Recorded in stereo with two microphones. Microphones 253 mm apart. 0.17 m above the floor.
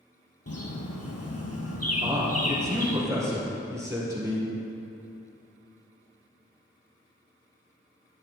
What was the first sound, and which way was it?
A bird, 75° left (ahead or behind).